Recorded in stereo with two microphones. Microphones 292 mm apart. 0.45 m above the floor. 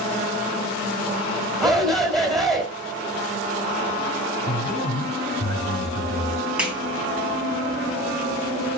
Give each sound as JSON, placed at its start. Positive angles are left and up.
{"t": 1.6, "sound": "a shout", "side_deg": 0, "distance_m": 3.0}
{"t": 4.5, "sound": "a man speaking", "side_deg": 65, "distance_m": 5.0}
{"t": 6.6, "sound": "a clap", "side_deg": -5, "distance_m": 3.5}